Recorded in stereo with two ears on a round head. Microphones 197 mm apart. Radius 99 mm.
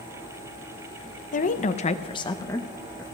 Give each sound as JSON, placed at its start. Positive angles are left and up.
{"t": 1.3, "sound": "a woman speaking", "side_deg": 35, "distance_m": 0.7}